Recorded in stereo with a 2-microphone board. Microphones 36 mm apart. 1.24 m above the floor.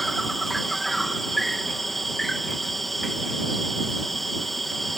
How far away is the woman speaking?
No woman speaking in this recording.